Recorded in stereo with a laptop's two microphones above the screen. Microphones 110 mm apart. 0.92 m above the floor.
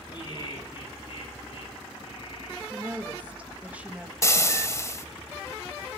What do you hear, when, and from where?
0.1 s laughter: 45° left (ahead or behind), 8 m; by 2.6 s 60° left (ahead or behind), 10.5 m
2.7 s a woman speaking: 15° right (ahead or behind), 1.1 m
4.2 s frying: 30° left (ahead or behind), 1.7 m